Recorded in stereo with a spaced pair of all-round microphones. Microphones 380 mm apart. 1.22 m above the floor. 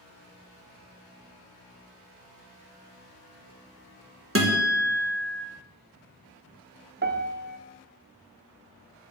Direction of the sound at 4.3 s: 35° right (ahead or behind).